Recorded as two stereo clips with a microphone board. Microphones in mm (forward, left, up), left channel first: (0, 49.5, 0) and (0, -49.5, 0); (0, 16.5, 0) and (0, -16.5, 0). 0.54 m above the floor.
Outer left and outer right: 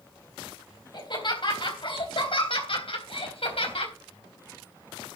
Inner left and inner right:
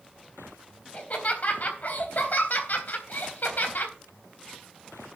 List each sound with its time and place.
0.9 s laughter: 50° left (ahead or behind), 3 m; by 3.9 s 75° left (ahead or behind), 3.5 m